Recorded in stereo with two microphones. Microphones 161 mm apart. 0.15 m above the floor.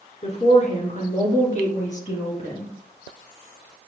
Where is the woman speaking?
45° left (ahead or behind), 2 m; by 2.7 s 50° left (ahead or behind), 3 m.